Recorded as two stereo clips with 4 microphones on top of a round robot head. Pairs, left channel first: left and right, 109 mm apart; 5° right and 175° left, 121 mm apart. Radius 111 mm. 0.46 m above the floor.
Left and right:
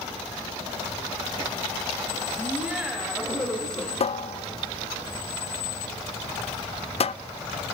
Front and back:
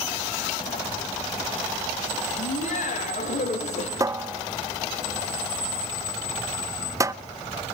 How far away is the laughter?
About 3.5 m.